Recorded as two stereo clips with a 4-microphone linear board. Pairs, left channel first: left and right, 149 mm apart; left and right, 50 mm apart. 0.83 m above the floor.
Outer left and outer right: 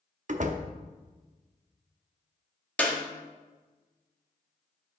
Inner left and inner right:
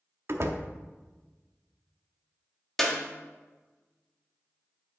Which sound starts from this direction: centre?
A clap, at 2.8 s.